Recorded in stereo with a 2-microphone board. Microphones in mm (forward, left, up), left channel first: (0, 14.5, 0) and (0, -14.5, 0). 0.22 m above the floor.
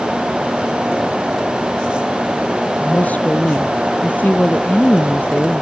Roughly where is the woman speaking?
Left.